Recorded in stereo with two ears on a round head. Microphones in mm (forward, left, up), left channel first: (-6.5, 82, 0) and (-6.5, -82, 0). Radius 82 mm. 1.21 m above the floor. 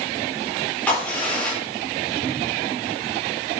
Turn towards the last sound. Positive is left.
turn(degrees=10)  # may be behind; listen again after turning